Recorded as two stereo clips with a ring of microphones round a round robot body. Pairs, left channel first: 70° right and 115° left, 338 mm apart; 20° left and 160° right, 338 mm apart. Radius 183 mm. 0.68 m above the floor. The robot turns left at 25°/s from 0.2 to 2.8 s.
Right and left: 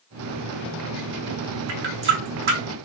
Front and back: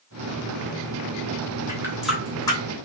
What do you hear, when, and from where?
1.7 s a running tap: 125° left, 0.9 m; by 2.6 s 100° left, 0.9 m